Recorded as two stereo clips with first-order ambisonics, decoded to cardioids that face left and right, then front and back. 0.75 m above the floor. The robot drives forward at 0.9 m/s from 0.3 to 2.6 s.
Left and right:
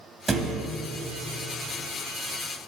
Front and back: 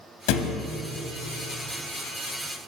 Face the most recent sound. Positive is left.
turn(degrees=-165)